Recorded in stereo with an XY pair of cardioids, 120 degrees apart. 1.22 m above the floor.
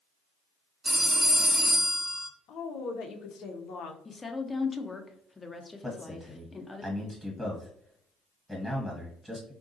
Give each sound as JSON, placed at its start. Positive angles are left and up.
{"t": 0.8, "sound": "a phone ringing", "azimuth_deg": -20, "distance_m": 0.8}
{"t": 2.5, "sound": "a woman speaking", "azimuth_deg": 65, "distance_m": 0.7}
{"t": 4.0, "sound": "a woman speaking", "azimuth_deg": 20, "distance_m": 0.6}
{"t": 5.8, "sound": "a man speaking", "azimuth_deg": 5, "distance_m": 1.1}